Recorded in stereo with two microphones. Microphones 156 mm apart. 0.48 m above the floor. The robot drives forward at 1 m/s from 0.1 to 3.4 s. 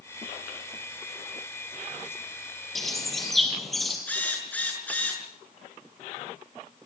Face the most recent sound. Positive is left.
turn(degrees=10)  # may be behind; listen again after turning